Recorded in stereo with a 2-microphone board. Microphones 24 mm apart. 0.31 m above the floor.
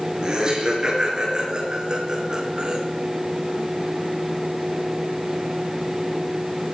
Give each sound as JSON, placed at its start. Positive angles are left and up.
{"t": 0.2, "sound": "laughter", "side_deg": -35, "distance_m": 5.5}